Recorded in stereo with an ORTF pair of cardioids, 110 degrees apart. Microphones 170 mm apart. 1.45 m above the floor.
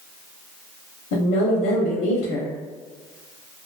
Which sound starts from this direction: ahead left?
A woman speaking, at 1.1 s.